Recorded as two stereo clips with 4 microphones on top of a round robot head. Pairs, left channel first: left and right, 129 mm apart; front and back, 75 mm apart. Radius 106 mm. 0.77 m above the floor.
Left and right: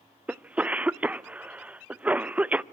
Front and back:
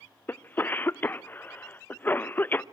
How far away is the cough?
About 0.8 m.